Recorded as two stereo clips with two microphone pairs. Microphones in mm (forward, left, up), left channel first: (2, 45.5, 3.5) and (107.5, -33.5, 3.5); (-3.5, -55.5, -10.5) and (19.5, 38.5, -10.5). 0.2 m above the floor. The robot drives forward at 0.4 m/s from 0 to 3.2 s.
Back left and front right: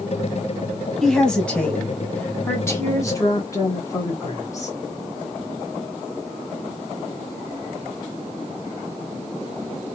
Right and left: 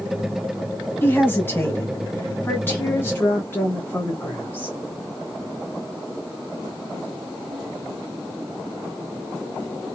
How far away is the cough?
No cough in this recording.